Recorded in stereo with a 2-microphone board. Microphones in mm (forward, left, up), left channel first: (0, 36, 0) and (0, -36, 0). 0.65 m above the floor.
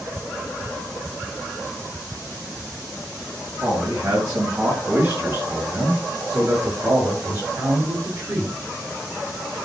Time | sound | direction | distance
3.6 | a man speaking | 40° right (ahead or behind) | 6.5 m